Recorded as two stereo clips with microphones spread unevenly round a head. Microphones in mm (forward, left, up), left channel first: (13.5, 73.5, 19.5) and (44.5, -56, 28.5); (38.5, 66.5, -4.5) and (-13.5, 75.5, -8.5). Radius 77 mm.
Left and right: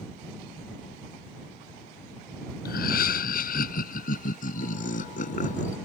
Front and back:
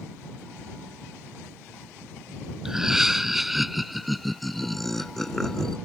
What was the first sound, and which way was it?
Laughter, 90° left.